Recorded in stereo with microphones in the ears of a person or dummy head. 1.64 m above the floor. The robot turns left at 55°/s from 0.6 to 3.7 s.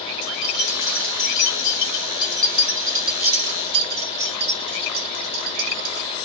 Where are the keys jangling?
60° left (ahead or behind), 1.9 m; by 6.1 s 55° right (ahead or behind), 1.9 m.